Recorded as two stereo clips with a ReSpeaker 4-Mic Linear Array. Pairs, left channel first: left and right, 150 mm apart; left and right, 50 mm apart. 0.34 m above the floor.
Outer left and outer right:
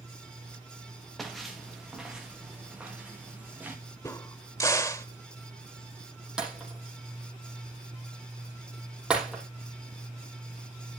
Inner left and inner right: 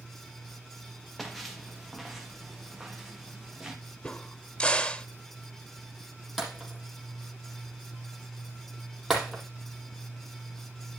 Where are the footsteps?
Centre (ahead or behind), 3.5 m; by 3.8 s 10° right (ahead or behind), 5.5 m.